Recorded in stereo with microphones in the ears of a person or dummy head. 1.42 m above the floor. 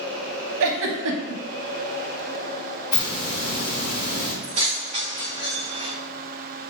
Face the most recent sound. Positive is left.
turn(degrees=-40)  # may be behind; listen again after turning